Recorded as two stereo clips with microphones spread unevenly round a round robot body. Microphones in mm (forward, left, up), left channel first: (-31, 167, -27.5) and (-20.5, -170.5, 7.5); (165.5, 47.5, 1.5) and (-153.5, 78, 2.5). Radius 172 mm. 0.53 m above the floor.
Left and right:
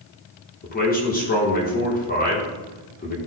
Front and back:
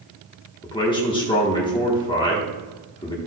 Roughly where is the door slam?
I don't hear a door slam.